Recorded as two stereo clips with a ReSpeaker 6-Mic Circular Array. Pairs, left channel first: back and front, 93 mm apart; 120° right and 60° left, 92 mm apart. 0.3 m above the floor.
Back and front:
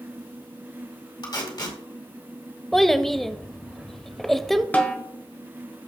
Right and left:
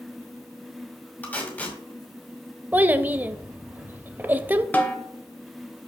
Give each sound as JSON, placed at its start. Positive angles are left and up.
{"t": 1.2, "sound": "tape being pulled", "azimuth_deg": 175, "distance_m": 2.0}
{"t": 2.7, "sound": "a child speaking", "azimuth_deg": 95, "distance_m": 0.5}
{"t": 4.7, "sound": "a snare drum", "azimuth_deg": -145, "distance_m": 1.1}